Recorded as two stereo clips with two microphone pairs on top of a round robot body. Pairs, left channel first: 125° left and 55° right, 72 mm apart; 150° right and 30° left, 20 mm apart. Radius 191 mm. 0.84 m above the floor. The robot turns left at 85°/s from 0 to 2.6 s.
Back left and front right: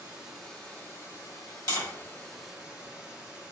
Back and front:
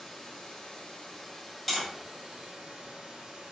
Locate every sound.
0.0 s running water: 120° right, 1.9 m; by 3.5 s 20° left, 1.9 m
1.7 s tapping: 115° left, 2.0 m; by 1.9 s 95° left, 2.0 m